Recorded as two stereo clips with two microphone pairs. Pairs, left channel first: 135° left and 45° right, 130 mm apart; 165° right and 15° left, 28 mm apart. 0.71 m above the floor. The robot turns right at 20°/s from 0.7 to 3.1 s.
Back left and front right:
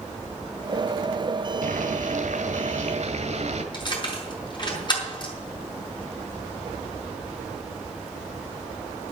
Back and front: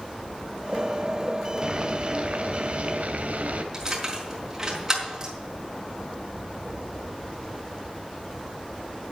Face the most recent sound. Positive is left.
turn(degrees=80)